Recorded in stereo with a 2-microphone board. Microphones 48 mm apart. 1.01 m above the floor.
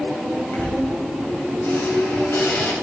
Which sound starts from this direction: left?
A squeak, at 0.5 s.